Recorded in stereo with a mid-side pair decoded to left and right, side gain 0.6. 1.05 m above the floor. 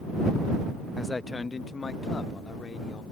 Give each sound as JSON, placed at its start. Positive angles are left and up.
{"t": 1.0, "sound": "a man speaking", "azimuth_deg": 10}